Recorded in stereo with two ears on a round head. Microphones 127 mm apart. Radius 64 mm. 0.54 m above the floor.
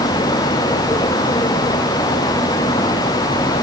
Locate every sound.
Only background noise.